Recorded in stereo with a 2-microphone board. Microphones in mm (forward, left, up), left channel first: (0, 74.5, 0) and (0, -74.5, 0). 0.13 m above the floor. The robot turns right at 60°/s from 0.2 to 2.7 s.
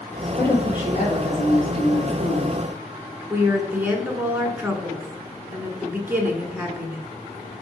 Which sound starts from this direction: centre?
A woman speaking, at 3.3 s.